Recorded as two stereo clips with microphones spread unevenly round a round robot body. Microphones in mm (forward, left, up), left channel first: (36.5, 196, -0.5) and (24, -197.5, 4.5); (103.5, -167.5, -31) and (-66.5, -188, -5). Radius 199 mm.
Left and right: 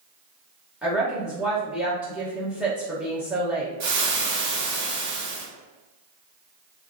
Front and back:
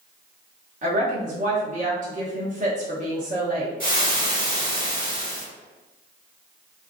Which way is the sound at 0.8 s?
Straight behind.